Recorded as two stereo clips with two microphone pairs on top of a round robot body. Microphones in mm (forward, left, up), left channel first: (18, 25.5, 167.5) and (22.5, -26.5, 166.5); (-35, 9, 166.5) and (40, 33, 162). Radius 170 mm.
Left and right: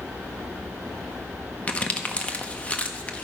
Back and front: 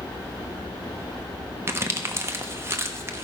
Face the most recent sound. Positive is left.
turn(degrees=45)